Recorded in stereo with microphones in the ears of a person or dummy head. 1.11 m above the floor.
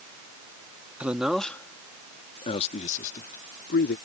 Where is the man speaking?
10° right (ahead or behind); by 4.0 s 55° left (ahead or behind).